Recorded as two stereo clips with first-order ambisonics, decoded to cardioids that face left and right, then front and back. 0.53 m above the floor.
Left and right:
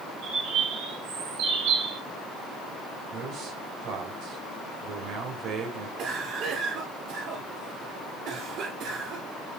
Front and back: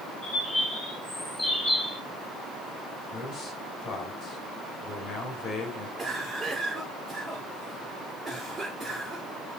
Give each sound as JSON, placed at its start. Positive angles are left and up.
{"t": 0.2, "sound": "a bird", "azimuth_deg": -80, "distance_m": 3.0}
{"t": 3.1, "sound": "a man speaking", "azimuth_deg": -55, "distance_m": 3.0}
{"t": 6.0, "sound": "a cough", "azimuth_deg": -110, "distance_m": 1.7}